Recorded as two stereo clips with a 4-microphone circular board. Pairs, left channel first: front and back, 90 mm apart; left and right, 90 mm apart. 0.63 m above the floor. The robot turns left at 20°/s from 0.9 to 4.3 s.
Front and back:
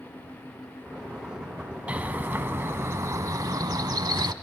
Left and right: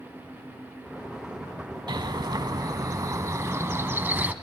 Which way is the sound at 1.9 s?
110° right.